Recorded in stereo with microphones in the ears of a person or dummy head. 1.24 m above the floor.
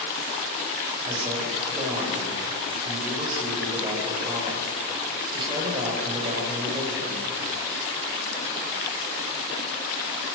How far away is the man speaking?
About 5 m.